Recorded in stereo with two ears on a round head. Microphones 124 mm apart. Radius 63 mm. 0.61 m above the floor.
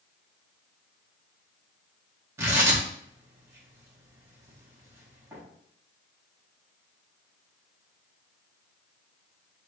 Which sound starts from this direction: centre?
Tearing paper, at 2.4 s.